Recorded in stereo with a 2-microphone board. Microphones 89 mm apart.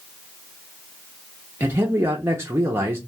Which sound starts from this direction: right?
A man speaking, at 1.6 s.